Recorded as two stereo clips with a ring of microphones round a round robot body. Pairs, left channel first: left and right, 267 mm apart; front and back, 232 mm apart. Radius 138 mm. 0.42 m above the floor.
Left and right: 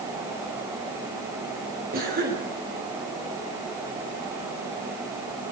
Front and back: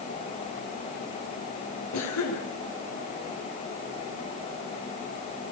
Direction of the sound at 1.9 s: 30° right.